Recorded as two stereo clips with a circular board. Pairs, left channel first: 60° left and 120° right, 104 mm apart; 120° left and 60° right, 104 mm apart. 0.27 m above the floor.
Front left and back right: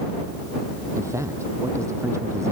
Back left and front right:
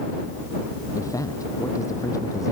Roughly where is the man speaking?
Behind.